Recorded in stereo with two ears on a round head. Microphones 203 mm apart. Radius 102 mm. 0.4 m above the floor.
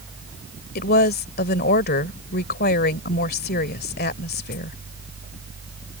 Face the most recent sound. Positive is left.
turn(degrees=45)  # may be behind; listen again after turning